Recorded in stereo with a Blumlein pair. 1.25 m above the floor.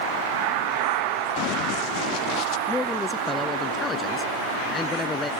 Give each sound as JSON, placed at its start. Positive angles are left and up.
{"t": 1.4, "sound": "running footsteps", "azimuth_deg": 40}
{"t": 2.7, "sound": "a man speaking", "azimuth_deg": 15}